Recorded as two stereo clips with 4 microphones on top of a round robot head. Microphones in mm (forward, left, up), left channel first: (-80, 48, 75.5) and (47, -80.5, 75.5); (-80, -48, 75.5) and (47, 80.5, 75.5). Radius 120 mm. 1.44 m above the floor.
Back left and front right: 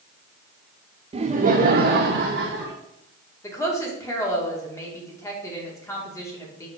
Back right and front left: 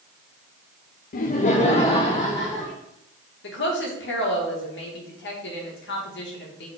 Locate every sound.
1.1 s laughter: 105° right, 0.5 m; by 2.7 s 65° right, 1.1 m
3.4 s a woman speaking: 150° right, 2 m